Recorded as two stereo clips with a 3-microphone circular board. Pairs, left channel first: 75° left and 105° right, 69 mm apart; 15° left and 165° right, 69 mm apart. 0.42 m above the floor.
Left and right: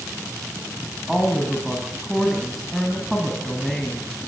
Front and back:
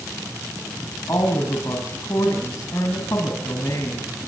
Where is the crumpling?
No crumpling in this recording.